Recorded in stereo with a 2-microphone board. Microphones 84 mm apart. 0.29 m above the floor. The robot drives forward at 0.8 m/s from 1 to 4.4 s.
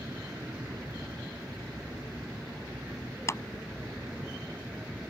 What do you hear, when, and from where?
0.0 s an aircraft: 30° right (ahead or behind); by 5.1 s 15° right (ahead or behind)
3.3 s a clap: 35° left (ahead or behind)